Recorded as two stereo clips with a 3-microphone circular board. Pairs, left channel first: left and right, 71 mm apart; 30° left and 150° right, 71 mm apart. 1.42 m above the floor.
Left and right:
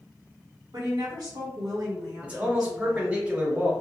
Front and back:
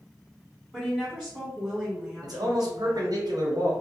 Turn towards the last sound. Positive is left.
turn(degrees=-160)